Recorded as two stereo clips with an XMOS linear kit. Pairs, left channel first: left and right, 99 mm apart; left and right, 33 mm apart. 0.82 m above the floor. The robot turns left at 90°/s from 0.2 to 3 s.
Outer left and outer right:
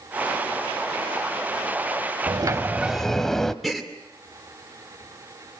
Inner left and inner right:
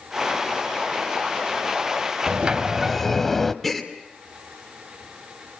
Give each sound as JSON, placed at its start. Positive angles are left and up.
{"t": 2.3, "sound": "a sliding door", "azimuth_deg": -120, "distance_m": 1.0}
{"t": 3.6, "sound": "a gasp", "side_deg": 0, "distance_m": 2.0}